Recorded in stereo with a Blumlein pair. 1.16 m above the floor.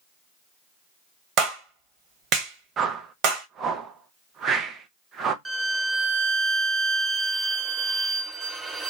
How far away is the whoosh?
About 0.6 m.